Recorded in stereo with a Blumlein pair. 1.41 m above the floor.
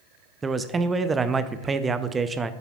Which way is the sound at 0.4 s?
15° right.